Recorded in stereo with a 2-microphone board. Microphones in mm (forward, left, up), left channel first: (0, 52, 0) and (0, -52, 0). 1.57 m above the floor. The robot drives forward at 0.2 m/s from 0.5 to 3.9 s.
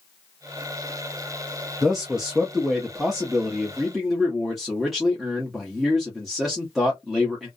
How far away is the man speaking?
About 0.5 m.